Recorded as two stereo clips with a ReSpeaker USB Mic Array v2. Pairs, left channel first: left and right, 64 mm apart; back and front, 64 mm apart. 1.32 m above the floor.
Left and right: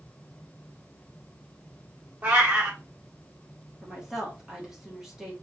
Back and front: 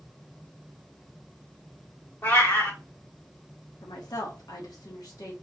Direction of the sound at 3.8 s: 170° right.